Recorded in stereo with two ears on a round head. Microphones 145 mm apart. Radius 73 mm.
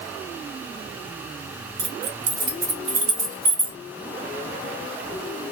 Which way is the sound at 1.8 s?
65° right (ahead or behind).